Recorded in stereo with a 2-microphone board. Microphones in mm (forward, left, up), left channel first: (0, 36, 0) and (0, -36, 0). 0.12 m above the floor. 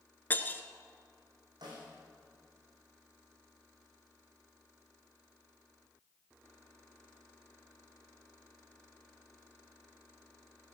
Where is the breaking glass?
25° left (ahead or behind), 1.1 m.